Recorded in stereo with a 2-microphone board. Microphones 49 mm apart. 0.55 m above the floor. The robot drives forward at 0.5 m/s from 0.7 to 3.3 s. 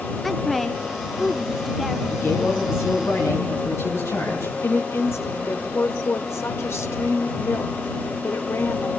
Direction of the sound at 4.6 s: 60° left (ahead or behind).